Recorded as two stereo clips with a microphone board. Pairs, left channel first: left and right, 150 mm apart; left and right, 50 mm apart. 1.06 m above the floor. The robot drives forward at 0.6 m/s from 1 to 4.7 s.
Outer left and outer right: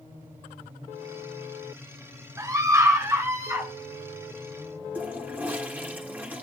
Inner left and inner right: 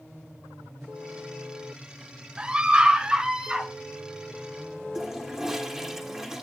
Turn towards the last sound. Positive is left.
turn(degrees=-10)  # may be behind; listen again after turning